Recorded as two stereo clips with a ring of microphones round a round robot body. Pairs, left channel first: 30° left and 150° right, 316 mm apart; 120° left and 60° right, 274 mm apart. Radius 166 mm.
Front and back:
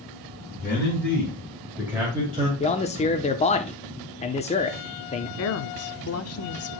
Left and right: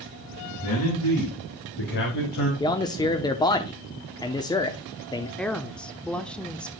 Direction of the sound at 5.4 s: 35° left.